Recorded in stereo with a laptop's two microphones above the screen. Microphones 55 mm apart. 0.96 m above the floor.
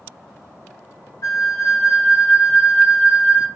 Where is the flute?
70° left (ahead or behind), 1.5 m.